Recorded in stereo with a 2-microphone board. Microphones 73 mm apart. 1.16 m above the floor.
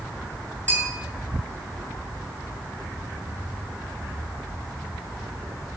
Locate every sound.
0.7 s a bell: 25° left (ahead or behind), 2.5 m